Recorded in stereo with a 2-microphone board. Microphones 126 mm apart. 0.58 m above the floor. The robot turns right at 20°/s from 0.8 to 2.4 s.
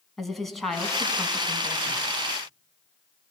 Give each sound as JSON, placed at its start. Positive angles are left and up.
{"t": 0.2, "sound": "a woman speaking", "side_deg": 0, "distance_m": 4.0}